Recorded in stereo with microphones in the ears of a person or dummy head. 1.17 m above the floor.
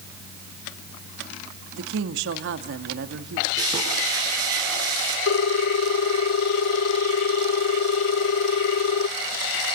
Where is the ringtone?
65° left (ahead or behind), 0.5 m.